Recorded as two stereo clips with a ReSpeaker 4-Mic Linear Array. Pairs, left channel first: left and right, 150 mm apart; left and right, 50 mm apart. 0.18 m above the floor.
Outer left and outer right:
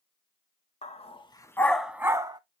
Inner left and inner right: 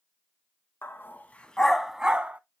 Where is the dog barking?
50° left (ahead or behind), 0.7 m; by 2.4 s 30° right (ahead or behind), 0.6 m.